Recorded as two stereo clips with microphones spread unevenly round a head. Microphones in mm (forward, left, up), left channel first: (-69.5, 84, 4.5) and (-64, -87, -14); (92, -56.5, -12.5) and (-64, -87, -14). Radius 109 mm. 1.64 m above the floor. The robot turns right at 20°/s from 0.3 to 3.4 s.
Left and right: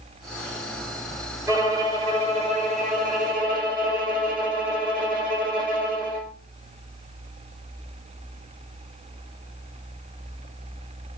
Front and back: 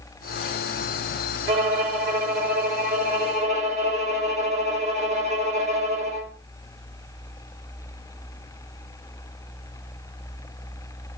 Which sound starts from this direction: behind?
A violin, at 1.5 s.